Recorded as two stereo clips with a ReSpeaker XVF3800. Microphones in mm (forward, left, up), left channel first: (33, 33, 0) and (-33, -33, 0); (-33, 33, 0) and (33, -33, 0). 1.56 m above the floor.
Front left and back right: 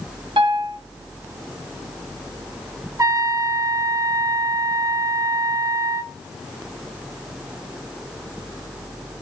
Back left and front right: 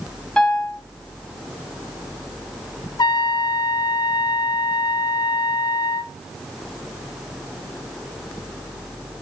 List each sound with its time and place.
0.4 s a piano: 145° right, 2.5 m
3.0 s a trumpet: 170° left, 0.7 m